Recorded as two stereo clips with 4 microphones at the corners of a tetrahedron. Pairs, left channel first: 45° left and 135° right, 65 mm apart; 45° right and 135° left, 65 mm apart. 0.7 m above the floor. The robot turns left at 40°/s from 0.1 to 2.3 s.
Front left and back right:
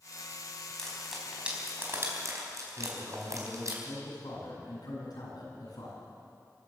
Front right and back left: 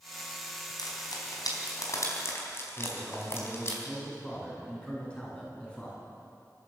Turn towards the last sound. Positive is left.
turn(degrees=30)